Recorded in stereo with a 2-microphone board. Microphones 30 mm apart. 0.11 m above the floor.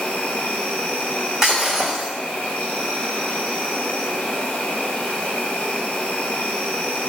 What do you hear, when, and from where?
0.0 s an insect: 60° left (ahead or behind), 0.7 m
1.4 s breaking glass: 20° right (ahead or behind), 1.9 m